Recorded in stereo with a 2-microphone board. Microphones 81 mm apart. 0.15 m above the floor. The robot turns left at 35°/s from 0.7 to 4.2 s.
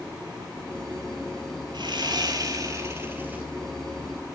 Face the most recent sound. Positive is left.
turn(degrees=170)